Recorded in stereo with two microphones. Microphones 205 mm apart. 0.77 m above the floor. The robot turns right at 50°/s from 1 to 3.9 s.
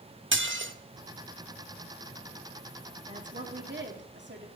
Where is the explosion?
I don't hear an explosion.